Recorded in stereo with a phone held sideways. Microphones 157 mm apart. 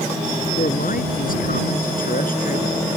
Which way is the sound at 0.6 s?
65° left (ahead or behind).